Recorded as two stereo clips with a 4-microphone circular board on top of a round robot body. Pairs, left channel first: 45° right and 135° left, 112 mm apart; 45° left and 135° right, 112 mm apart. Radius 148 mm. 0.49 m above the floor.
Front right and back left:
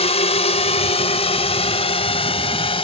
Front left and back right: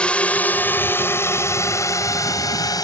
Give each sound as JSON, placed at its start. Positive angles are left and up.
{"t": 0.0, "sound": "a drone", "azimuth_deg": -35}